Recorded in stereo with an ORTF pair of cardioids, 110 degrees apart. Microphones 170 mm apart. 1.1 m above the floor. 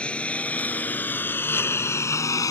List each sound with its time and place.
0.0 s a lawn mower: 5° left; by 2.5 s 20° left